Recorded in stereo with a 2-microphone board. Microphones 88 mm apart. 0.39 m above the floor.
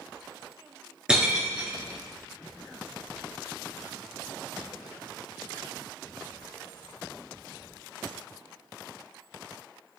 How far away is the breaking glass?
About 3 m.